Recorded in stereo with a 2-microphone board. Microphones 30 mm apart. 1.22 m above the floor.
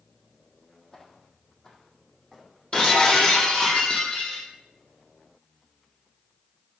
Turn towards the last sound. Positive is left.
turn(degrees=25)  # may be behind; listen again after turning